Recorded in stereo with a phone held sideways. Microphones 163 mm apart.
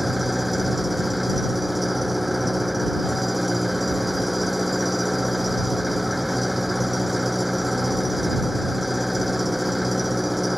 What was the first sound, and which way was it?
An engine running, centre (ahead or behind).